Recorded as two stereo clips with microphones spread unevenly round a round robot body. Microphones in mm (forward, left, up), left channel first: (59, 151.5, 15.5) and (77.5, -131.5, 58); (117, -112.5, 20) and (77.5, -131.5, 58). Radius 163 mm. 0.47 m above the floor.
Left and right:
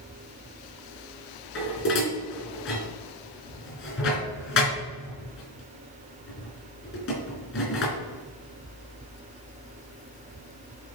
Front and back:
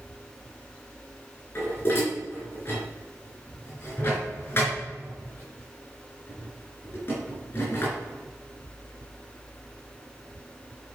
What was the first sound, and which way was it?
Dishes clattering, 50° left.